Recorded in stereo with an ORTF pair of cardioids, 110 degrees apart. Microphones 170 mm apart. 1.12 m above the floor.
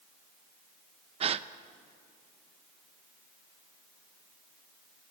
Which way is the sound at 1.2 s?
40° right.